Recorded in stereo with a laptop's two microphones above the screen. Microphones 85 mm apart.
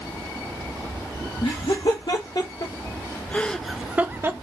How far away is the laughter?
About 1.3 m.